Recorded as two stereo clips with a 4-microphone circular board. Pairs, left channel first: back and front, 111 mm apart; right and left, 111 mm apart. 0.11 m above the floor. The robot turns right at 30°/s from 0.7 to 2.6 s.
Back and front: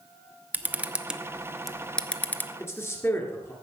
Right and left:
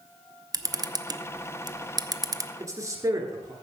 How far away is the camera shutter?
About 0.5 m.